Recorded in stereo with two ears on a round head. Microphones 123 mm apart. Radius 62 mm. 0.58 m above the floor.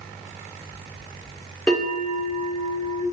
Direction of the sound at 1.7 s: Centre (ahead or behind).